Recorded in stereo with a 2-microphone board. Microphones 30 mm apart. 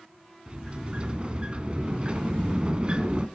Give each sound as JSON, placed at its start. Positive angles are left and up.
{"t": 0.5, "sound": "a sliding door", "side_deg": -35, "distance_m": 1.1}